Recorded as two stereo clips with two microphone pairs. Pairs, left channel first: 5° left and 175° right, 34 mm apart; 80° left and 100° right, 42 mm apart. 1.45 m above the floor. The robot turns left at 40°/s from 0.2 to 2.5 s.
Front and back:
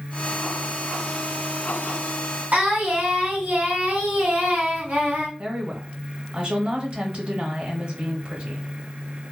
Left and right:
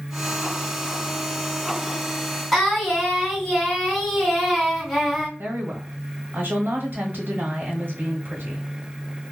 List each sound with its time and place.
2.5 s singing: 175° left, 1.8 m
5.4 s a woman speaking: 125° right, 1.1 m